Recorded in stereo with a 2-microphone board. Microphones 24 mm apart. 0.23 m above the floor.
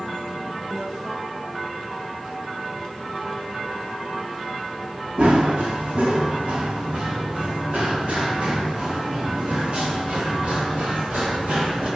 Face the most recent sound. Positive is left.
turn(degrees=-70)  # may be behind; listen again after turning